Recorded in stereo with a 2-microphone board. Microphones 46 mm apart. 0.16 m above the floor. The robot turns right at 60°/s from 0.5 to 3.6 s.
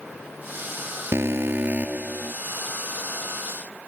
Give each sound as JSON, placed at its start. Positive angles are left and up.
{"t": 1.1, "sound": "an alarm", "azimuth_deg": -80}